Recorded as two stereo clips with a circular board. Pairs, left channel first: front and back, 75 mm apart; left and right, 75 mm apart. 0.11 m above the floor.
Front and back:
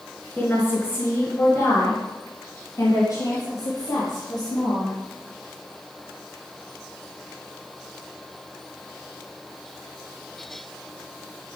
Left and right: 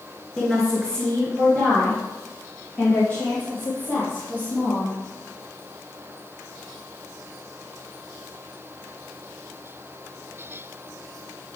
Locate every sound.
0.4 s a woman speaking: 15° left, 1.5 m; by 4.9 s 30° left, 3.5 m